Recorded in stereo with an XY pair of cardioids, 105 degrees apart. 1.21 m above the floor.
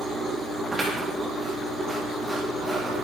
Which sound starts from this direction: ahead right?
Scissors, at 0.7 s.